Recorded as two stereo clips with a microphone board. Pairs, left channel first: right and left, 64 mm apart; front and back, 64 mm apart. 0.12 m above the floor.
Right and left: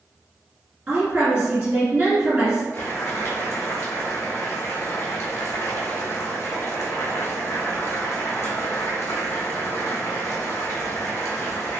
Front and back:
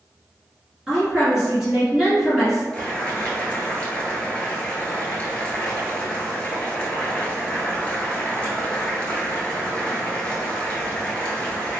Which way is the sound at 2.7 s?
65° right.